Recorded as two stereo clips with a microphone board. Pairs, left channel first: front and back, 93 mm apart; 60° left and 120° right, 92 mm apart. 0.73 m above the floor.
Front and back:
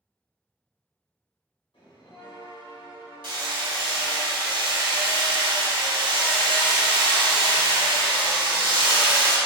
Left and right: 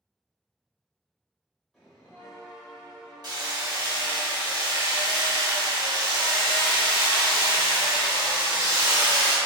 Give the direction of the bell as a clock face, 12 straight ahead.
1 o'clock.